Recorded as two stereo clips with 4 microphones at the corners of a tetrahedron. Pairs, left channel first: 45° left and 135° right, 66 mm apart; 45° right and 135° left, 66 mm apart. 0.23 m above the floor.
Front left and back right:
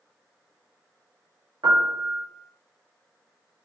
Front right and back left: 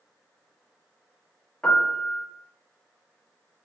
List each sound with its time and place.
1.6 s a piano: 125° right, 0.7 m